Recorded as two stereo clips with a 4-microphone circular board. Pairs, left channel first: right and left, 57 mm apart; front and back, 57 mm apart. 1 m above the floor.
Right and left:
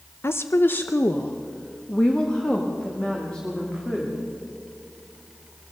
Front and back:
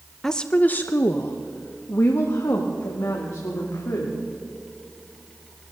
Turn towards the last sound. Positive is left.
turn(degrees=-10)